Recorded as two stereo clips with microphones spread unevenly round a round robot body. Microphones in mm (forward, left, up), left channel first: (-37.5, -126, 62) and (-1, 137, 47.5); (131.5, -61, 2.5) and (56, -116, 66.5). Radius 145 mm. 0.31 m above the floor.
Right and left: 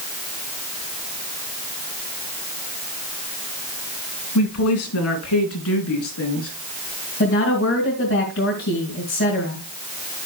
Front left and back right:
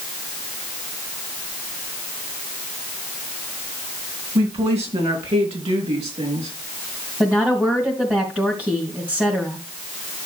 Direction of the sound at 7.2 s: 50° right.